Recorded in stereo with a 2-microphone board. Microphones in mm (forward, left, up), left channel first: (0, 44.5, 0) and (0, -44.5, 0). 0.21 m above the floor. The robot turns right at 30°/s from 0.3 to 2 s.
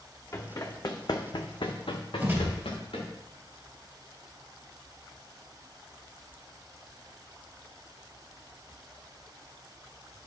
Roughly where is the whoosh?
Right.